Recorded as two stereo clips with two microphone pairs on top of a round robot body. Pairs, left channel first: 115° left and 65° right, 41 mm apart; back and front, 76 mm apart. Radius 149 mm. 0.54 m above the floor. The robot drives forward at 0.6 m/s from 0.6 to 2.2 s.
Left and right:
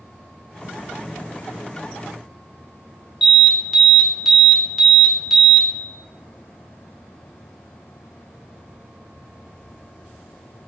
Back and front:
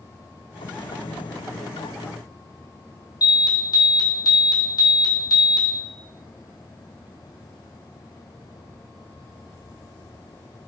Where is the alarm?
150° right, 0.9 m.